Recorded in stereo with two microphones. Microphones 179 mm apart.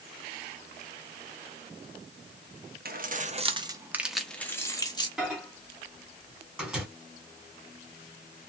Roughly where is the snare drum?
No snare drum in this recording.